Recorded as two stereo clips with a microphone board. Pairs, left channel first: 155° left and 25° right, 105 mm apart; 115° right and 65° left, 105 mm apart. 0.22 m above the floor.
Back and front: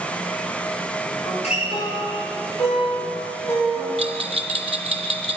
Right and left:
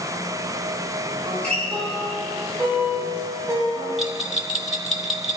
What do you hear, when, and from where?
1.2 s a guitar: 165° left, 7 m
4.0 s a bell: 20° right, 0.8 m